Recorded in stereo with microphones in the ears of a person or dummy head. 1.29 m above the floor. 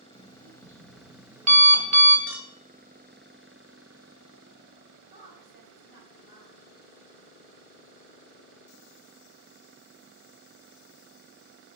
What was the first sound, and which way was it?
An alarm clock, 40° right (ahead or behind).